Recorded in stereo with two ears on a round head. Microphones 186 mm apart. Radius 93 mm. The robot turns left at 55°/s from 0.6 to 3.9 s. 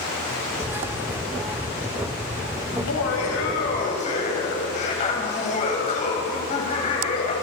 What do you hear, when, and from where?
2.7 s laughter: 100° left, 8 m; by 7.3 s 35° left, 8 m